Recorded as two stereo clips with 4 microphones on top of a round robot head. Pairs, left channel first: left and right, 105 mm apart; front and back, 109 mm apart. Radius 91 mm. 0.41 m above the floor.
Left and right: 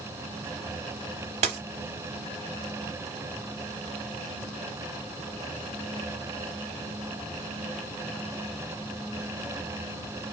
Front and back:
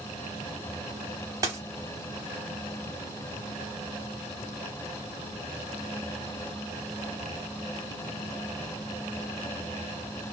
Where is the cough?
No cough in this recording.